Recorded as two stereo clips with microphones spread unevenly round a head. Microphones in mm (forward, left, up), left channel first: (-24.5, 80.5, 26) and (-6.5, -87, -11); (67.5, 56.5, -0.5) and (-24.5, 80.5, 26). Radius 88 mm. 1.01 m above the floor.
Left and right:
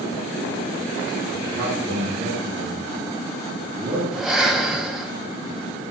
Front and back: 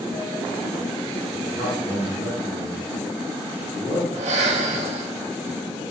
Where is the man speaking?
110° right, 9 m.